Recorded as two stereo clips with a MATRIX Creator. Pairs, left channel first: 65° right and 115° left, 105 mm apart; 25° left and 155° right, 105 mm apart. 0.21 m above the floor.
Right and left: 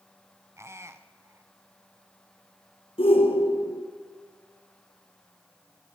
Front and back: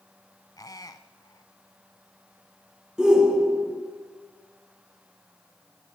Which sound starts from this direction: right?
A shout, at 3.0 s.